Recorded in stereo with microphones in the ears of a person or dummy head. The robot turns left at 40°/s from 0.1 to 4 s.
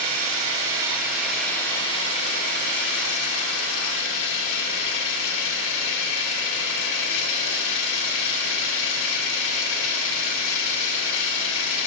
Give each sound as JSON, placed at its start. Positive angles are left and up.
{"t": 0.0, "sound": "an engine running", "azimuth_deg": -130, "distance_m": 1.9}